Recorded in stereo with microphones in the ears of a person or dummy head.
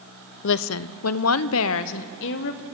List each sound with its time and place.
0.4 s a woman speaking: 65° left (ahead or behind), 0.6 m; by 2.6 s 60° left (ahead or behind), 1.5 m